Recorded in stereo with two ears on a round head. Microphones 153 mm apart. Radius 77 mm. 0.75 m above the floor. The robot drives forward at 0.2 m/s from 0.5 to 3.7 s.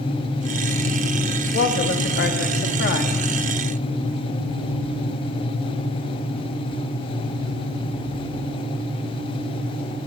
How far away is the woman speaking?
About 1.0 m.